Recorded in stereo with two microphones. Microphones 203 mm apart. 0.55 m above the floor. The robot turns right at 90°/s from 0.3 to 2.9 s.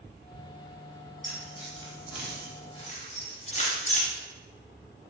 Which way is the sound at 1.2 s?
40° right (ahead or behind).